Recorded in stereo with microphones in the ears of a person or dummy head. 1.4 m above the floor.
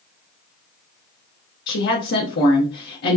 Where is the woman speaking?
50° left (ahead or behind), 1.0 m.